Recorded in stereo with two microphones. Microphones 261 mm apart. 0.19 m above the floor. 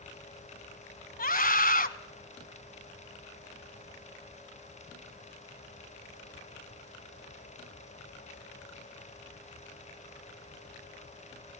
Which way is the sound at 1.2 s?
35° left (ahead or behind).